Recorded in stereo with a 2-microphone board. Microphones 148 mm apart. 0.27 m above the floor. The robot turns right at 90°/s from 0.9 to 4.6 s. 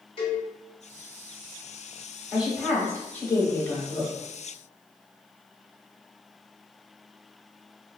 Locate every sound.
0.2 s a cowbell: 35° left (ahead or behind), 1.5 m
2.3 s a woman speaking: 10° right (ahead or behind), 1.0 m; by 4.1 s 15° left (ahead or behind), 1.0 m